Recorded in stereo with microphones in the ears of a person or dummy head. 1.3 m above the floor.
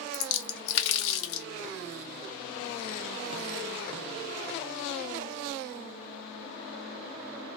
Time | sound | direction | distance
0.1 | a splash | 65° left (ahead or behind) | 0.5 m